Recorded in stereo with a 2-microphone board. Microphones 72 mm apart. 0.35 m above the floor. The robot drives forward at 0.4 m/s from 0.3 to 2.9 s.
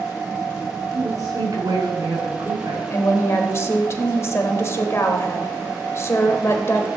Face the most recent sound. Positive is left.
turn(degrees=40)  # may be behind; listen again after turning